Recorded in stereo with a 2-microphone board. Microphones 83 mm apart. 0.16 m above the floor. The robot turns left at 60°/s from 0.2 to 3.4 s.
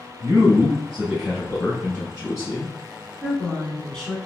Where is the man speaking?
115° right, 1.5 m; by 2.7 s 90° left, 1.5 m.